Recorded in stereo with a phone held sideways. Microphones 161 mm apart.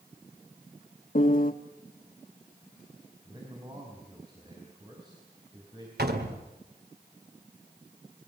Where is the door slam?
80° right, 2 m.